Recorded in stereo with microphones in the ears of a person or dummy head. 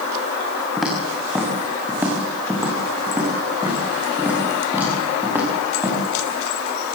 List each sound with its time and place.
0.8 s footsteps: 5° right (ahead or behind), 5 m; by 6.0 s 15° right (ahead or behind), 7.5 m